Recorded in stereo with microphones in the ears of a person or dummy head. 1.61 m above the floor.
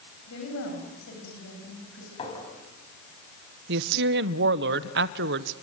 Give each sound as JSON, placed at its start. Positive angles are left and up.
{"t": 0.3, "sound": "a woman speaking", "side_deg": 75, "distance_m": 8.5}
{"t": 2.2, "sound": "a clink", "side_deg": 30, "distance_m": 6.0}
{"t": 3.7, "sound": "a woman speaking", "side_deg": -60, "distance_m": 1.0}